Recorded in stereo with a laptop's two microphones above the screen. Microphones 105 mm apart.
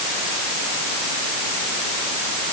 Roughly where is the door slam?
No door slam in this recording.